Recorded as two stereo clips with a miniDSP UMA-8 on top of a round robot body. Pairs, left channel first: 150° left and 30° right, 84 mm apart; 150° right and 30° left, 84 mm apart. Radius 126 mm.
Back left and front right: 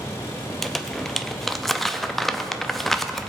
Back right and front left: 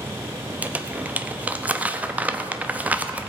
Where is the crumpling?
65° left, 0.9 m.